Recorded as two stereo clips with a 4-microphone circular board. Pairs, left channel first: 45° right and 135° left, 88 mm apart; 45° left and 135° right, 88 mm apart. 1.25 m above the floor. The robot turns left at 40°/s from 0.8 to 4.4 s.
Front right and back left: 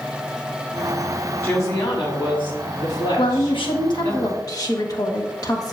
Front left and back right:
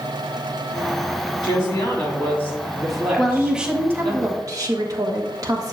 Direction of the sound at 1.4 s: 15° left.